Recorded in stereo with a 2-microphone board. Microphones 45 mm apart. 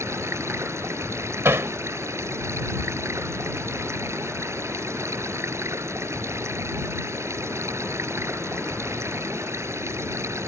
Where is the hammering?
70° right (ahead or behind).